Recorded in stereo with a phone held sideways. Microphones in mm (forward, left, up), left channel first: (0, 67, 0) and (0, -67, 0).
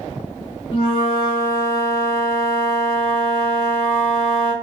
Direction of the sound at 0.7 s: 40° left (ahead or behind).